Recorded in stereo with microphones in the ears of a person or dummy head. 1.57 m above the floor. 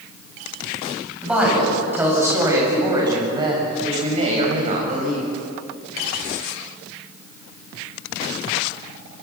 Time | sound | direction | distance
1.2 | a woman speaking | centre (ahead or behind) | 9 m